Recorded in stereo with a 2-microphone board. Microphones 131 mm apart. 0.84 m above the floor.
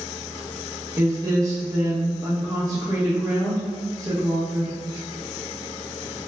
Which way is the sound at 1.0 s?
25° right (ahead or behind).